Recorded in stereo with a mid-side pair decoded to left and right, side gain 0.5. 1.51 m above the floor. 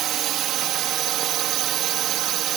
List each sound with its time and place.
0.0 s a drone: 65° right